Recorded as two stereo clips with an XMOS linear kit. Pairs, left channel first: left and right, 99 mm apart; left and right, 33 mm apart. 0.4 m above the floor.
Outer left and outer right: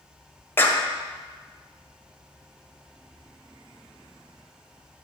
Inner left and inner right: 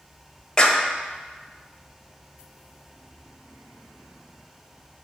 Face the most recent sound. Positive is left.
turn(degrees=25)  # may be behind; listen again after turning